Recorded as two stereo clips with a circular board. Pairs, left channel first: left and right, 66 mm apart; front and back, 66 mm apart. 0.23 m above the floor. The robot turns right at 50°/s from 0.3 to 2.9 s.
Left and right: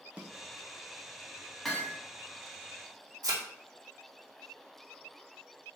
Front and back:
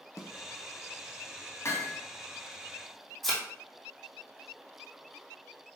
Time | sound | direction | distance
0.2 | a snare drum | 25° right | 0.8 m
1.6 | hammering | straight ahead | 1.1 m
3.2 | a thud | 85° right | 1.7 m